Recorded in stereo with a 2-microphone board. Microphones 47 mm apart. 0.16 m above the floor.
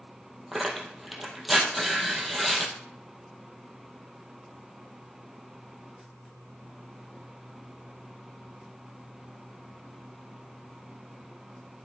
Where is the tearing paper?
Centre (ahead or behind), 2.0 m.